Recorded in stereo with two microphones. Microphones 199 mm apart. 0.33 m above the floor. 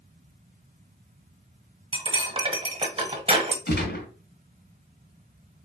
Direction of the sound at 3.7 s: 50° left (ahead or behind).